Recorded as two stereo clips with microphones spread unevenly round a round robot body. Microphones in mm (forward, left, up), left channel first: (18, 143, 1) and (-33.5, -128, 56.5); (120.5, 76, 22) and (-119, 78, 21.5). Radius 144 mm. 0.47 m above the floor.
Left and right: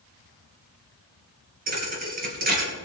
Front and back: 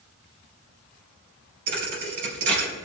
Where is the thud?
160° right, 3 m.